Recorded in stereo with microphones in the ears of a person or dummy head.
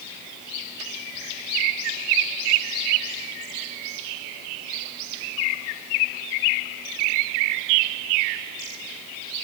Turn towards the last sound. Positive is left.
No sound to turn to.